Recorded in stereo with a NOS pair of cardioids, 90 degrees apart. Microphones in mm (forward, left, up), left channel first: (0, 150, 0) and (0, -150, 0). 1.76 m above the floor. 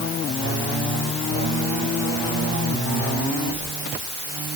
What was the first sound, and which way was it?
Only background noise.